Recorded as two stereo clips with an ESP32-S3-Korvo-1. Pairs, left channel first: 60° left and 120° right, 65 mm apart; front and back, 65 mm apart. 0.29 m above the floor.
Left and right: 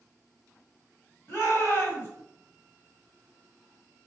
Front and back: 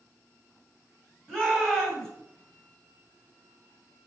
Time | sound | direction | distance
1.3 | a shout | 80° left | 1.7 m